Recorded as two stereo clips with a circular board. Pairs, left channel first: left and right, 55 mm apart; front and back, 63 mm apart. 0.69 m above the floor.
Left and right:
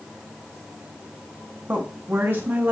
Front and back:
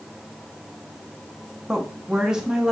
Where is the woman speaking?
105° right, 0.8 m.